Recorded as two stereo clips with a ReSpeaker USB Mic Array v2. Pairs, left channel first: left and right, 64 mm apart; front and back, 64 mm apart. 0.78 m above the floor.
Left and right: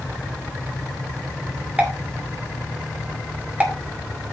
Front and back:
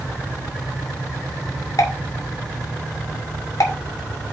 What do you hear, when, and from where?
1.8 s a pop: 25° right, 2 m